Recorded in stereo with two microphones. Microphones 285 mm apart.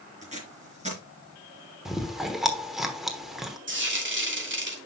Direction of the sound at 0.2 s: 20° right (ahead or behind).